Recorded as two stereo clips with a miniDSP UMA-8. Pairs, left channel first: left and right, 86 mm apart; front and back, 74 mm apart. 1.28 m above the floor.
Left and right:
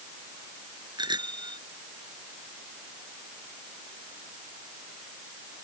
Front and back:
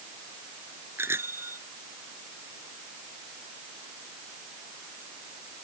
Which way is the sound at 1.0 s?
120° right.